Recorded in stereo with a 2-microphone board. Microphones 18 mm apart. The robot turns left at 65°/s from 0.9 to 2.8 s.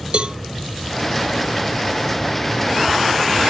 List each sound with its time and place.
0.1 s a cowbell: 65° right (ahead or behind), 0.6 m